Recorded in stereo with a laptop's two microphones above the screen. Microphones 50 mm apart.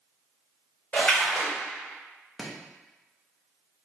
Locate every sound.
0.9 s a splash: 35° left (ahead or behind), 1.9 m
2.4 s chopping: 5° right (ahead or behind), 0.5 m